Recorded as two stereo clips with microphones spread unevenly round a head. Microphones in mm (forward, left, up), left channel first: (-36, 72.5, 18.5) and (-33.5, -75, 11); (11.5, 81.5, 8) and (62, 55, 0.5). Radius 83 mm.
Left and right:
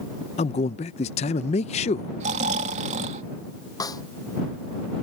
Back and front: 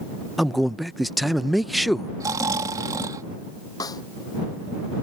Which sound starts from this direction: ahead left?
A man speaking, at 0.4 s.